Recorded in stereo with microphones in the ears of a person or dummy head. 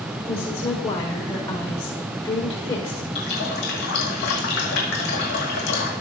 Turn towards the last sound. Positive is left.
turn(degrees=60)  # may be behind; listen again after turning